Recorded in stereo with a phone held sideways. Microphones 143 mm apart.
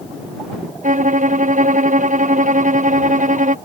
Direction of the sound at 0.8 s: 65° right (ahead or behind).